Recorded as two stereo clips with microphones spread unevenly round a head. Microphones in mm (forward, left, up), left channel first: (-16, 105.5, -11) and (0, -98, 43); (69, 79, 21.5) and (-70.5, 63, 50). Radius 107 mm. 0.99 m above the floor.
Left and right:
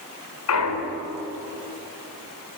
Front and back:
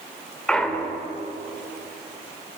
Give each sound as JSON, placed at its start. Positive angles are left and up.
{"t": 0.5, "sound": "a clunk", "azimuth_deg": 90, "distance_m": 3.0}